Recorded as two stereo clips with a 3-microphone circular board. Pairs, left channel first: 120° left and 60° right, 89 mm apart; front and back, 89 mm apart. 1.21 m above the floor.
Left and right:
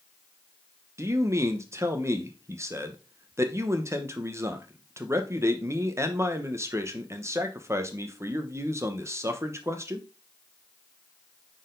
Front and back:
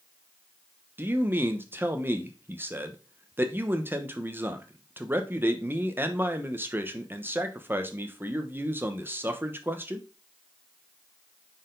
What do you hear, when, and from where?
1.0 s a man speaking: 115° right, 1.0 m